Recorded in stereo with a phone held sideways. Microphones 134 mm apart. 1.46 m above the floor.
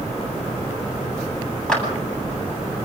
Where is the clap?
5° left (ahead or behind), 8.5 m.